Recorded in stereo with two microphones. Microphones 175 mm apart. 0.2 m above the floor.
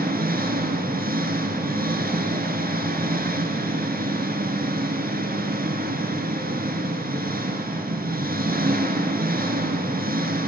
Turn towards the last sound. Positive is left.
turn(degrees=-60)  # may be behind; listen again after turning